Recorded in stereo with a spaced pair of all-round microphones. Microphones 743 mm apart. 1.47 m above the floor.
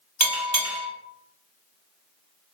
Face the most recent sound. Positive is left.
turn(degrees=-25)  # may be behind; listen again after turning